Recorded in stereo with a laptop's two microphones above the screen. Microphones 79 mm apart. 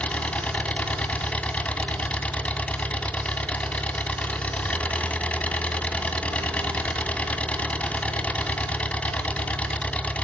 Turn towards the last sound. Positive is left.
turn(degrees=15)  # may be behind; listen again after turning